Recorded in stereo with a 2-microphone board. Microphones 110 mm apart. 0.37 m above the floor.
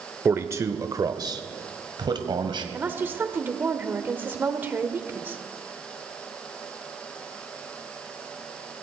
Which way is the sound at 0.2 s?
20° right (ahead or behind).